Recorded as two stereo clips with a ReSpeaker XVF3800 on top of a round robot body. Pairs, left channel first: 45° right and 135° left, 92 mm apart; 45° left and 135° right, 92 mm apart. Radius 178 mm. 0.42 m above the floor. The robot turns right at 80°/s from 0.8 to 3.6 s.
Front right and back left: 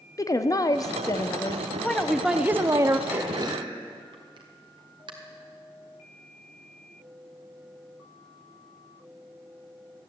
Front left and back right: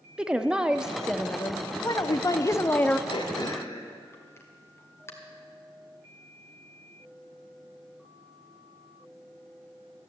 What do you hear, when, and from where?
0.2 s a woman speaking: 60° right, 0.9 m; by 3.0 s 115° left, 0.9 m
3.1 s throat clearing: 65° left, 2 m; by 5.1 s 105° left, 2 m